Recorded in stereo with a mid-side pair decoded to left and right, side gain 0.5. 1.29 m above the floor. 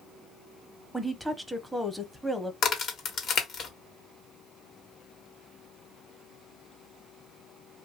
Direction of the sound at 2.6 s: 55° left.